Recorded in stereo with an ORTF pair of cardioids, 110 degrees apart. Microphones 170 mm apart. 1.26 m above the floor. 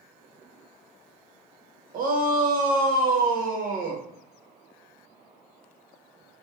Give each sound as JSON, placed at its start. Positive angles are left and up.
{"t": 1.9, "sound": "a shout", "azimuth_deg": -55, "distance_m": 0.8}